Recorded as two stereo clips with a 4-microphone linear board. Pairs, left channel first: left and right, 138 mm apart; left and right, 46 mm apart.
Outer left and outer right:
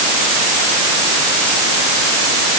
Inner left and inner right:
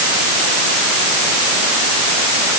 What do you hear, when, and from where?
Only background noise.